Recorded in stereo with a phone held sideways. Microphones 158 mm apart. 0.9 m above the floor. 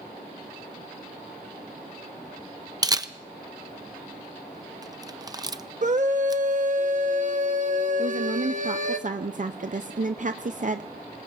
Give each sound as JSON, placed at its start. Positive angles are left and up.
{"t": 2.8, "sound": "a camera shutter", "side_deg": -25, "distance_m": 0.6}
{"t": 5.8, "sound": "a scream", "side_deg": -55, "distance_m": 1.0}
{"t": 8.0, "sound": "a woman speaking", "side_deg": -55, "distance_m": 0.5}